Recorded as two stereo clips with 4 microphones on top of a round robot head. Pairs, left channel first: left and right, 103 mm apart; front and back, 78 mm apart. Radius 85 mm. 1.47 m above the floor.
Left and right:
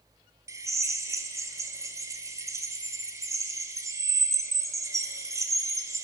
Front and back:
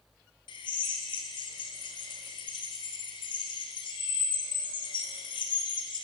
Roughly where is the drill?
Ahead right.